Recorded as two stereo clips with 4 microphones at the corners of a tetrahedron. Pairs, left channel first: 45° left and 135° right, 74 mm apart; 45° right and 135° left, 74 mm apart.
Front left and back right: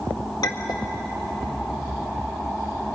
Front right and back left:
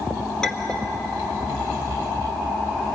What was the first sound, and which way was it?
A clink, 35° left.